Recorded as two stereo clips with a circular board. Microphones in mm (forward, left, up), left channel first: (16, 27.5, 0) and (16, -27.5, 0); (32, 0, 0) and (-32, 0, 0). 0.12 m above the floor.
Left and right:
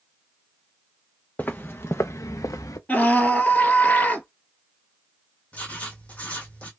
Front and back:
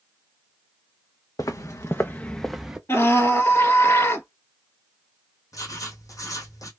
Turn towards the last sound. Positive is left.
turn(degrees=25)